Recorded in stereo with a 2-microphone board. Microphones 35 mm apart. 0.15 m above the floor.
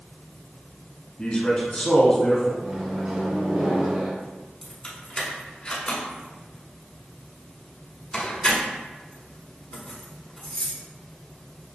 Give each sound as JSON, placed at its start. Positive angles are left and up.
{"t": 1.2, "sound": "a man speaking", "side_deg": 30, "distance_m": 1.3}
{"t": 2.6, "sound": "a microwave", "side_deg": -30, "distance_m": 1.4}
{"t": 4.6, "sound": "keys jangling", "side_deg": 25, "distance_m": 1.1}